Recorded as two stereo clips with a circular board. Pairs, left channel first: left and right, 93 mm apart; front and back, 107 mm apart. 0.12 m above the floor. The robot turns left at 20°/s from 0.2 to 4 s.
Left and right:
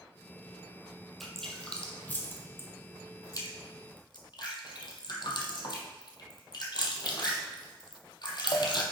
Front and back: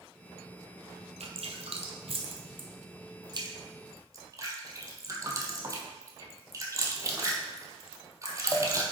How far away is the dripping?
About 1.3 m.